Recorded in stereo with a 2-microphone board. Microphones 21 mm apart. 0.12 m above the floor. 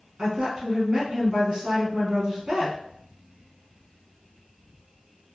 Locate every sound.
0.2 s a woman speaking: 40° right (ahead or behind), 1.5 m